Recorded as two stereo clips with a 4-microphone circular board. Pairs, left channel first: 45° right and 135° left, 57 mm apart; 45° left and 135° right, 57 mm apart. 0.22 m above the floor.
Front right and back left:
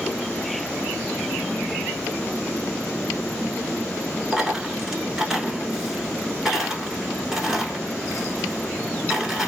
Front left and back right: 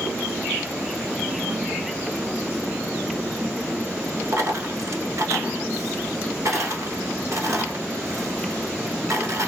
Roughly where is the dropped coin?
Behind right.